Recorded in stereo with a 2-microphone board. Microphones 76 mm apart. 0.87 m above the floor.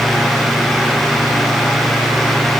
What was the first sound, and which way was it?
Only background noise.